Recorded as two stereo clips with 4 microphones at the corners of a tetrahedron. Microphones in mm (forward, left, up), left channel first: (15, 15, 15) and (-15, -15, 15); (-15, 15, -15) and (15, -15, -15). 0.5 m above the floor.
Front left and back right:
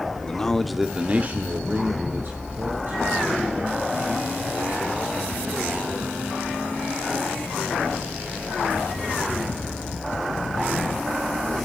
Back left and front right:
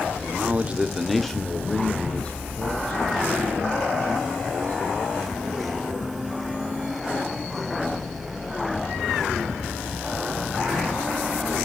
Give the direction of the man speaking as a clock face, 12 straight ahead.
12 o'clock.